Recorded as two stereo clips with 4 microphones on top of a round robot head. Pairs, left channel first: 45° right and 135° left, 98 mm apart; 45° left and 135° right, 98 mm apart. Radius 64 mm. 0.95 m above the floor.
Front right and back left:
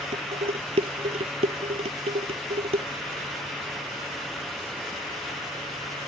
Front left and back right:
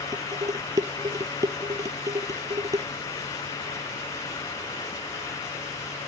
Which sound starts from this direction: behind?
Dishes clattering, at 0.1 s.